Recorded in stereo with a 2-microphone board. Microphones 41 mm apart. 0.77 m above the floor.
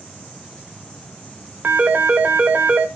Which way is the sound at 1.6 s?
45° right (ahead or behind).